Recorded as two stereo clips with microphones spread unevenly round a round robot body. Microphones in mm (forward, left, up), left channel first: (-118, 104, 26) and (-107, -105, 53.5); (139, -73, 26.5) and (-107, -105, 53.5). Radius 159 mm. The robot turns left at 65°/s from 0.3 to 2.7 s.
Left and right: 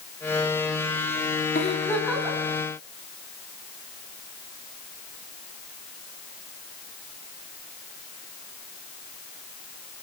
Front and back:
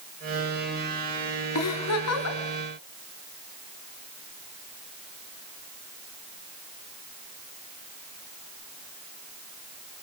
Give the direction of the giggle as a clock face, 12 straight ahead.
11 o'clock.